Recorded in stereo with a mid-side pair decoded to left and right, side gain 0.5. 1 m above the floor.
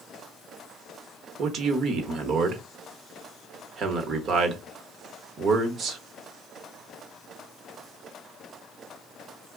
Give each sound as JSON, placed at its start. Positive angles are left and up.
{"t": 1.4, "sound": "a man speaking", "azimuth_deg": -60, "distance_m": 0.9}